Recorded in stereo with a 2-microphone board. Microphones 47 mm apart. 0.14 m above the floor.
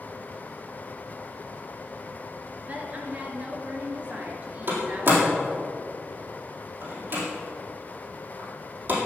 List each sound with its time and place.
2.7 s a woman speaking: 35° right (ahead or behind), 2 m
4.7 s a door slam: 45° right (ahead or behind), 4 m